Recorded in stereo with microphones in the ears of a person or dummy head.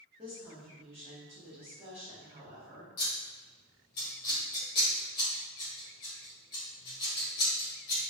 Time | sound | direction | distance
0.2 | a woman speaking | 25° right (ahead or behind) | 1.4 m
3.0 | scissors | 30° left (ahead or behind) | 1.2 m